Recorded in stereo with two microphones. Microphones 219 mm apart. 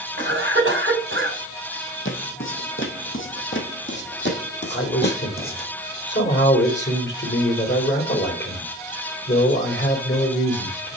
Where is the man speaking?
55° left (ahead or behind), 3 m.